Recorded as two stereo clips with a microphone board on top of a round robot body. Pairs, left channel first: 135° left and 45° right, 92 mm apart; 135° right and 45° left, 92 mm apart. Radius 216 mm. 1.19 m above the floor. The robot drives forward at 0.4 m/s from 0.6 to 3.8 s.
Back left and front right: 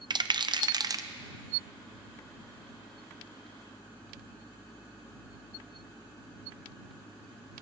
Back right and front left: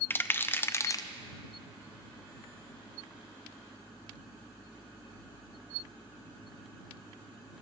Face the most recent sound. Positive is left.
turn(degrees=-155)